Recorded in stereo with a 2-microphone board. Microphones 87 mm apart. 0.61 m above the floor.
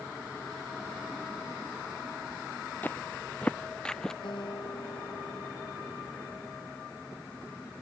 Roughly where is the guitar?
Left.